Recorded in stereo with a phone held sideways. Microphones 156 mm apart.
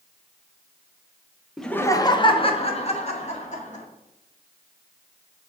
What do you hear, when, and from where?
1.6 s laughter: centre (ahead or behind), 0.6 m; by 3.8 s 50° left (ahead or behind), 2.5 m